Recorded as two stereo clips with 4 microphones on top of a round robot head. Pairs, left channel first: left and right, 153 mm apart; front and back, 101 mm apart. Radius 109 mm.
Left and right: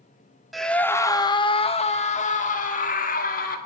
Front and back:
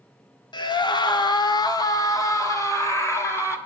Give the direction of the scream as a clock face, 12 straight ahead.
12 o'clock.